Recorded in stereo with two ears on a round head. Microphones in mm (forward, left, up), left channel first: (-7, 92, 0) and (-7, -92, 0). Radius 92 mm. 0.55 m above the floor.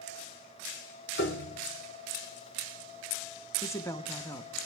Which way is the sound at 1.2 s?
60° left (ahead or behind).